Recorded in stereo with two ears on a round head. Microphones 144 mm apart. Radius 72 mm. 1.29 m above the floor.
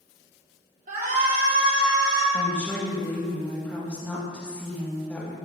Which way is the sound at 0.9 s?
50° right (ahead or behind).